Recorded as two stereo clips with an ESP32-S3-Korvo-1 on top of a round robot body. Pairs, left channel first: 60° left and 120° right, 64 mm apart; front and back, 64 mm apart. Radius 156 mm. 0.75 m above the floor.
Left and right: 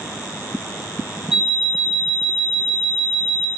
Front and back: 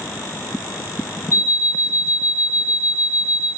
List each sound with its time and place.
1.3 s an alarm clock: 40° right, 0.6 m